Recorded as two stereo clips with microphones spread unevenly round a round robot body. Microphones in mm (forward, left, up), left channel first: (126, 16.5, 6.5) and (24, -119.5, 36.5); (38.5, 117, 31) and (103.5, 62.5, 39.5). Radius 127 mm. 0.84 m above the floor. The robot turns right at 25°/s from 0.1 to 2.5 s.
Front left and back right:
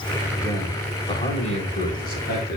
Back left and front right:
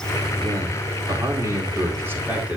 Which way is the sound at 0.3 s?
20° right.